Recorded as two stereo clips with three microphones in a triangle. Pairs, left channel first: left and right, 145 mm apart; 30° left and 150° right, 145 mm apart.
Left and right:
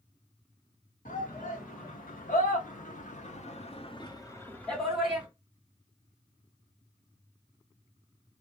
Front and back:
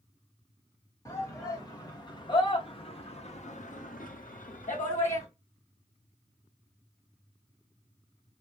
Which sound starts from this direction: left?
A shout, at 1.1 s.